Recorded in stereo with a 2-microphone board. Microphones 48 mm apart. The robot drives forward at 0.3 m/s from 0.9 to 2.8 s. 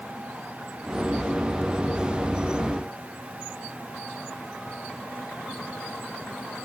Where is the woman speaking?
I don't hear a woman speaking.